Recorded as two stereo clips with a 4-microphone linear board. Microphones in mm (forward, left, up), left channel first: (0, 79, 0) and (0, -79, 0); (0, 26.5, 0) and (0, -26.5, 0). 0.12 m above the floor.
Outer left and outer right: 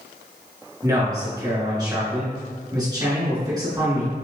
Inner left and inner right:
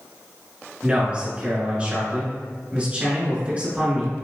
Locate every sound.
0.8 s a man speaking: 25° right (ahead or behind), 1.9 m